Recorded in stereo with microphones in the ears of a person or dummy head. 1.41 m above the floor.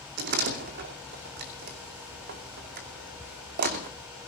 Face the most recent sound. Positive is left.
turn(degrees=-50)  # may be behind; listen again after turning